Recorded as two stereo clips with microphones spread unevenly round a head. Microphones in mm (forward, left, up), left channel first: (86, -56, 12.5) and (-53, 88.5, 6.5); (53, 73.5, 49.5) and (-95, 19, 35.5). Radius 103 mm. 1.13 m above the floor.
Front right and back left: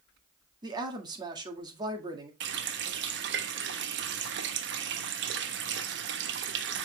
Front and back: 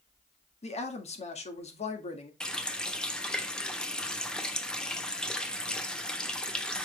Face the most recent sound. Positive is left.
turn(degrees=105)